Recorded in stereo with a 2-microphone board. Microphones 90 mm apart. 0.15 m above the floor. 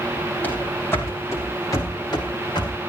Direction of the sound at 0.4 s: 20° left (ahead or behind).